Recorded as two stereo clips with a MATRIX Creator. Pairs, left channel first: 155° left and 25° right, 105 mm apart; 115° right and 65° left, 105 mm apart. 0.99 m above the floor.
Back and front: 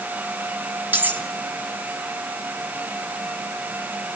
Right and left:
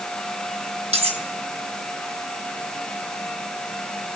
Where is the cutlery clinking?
50° left, 4 m.